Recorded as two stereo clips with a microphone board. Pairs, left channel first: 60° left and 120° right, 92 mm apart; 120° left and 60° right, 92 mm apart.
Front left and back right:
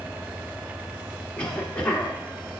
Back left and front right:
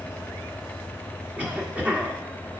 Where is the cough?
5° right, 1.1 m.